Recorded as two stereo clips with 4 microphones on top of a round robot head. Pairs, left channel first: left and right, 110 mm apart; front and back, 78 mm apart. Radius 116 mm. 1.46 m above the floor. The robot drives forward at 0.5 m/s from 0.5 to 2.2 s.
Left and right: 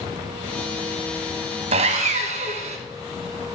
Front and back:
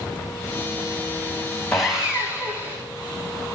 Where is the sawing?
85° right, 0.9 m; by 2.8 s 105° right, 0.9 m.